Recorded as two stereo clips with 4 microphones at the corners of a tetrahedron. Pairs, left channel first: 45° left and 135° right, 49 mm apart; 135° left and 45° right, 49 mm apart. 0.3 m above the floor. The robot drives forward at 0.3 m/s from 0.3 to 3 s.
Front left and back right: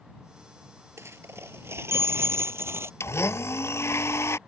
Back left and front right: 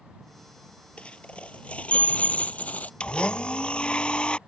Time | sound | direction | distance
1.0 | a dropped coin | 160° right | ?
3.0 | a blender | 65° left | ?